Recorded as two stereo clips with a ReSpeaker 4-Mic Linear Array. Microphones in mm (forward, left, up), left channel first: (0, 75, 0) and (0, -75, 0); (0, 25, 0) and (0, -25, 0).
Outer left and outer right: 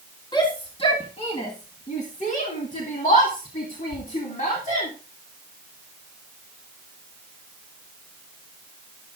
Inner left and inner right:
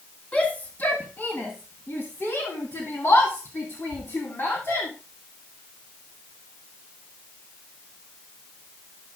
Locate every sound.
0.3 s a shout: 30° left (ahead or behind), 2 m; by 4.9 s 55° left (ahead or behind), 3 m